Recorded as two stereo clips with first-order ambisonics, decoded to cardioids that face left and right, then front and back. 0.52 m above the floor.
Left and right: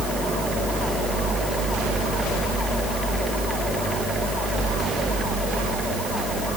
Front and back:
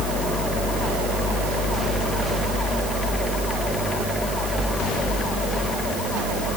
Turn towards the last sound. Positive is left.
No sound to turn to.